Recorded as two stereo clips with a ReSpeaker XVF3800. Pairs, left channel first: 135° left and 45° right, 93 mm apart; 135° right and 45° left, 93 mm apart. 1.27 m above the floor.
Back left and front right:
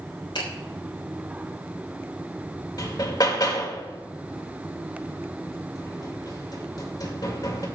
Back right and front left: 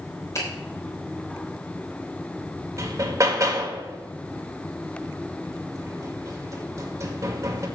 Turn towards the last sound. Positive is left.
turn(degrees=95)